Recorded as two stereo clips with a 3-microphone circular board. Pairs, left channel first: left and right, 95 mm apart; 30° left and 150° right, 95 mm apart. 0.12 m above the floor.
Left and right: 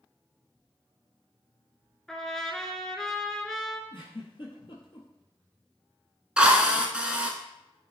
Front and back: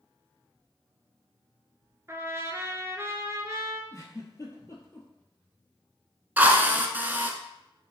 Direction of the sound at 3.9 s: 80° left.